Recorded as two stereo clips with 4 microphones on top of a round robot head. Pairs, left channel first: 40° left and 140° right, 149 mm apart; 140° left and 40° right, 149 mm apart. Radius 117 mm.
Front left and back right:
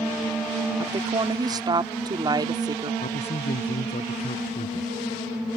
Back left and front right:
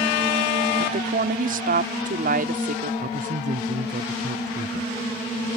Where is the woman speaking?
75° right.